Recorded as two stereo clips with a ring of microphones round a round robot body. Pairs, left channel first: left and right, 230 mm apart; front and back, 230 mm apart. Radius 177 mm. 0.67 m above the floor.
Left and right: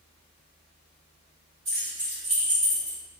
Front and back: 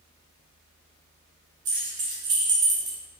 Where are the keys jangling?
160° right, 1.4 m; by 3.0 s 150° left, 1.0 m.